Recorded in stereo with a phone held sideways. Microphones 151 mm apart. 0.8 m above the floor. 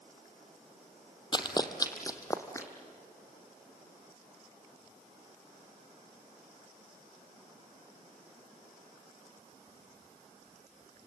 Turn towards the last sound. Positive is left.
turn(degrees=20)  # may be behind; listen again after turning